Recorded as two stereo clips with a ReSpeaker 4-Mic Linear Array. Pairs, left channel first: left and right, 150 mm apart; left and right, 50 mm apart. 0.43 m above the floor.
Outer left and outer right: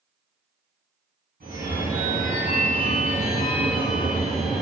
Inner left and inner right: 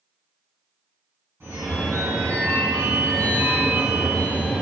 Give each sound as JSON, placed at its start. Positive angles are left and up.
{"t": 1.4, "sound": "a phone ringing", "side_deg": -80, "distance_m": 1.9}